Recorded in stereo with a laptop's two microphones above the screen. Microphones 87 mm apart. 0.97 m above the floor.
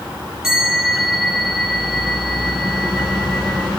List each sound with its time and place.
0.4 s a bell: 5° right (ahead or behind), 5 m